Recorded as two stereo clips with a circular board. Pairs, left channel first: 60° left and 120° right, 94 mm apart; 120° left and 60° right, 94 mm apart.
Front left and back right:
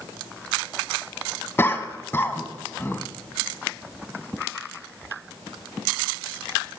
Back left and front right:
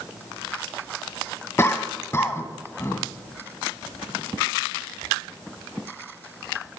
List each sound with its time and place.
1.6 s a cough: 90° left, 1.4 m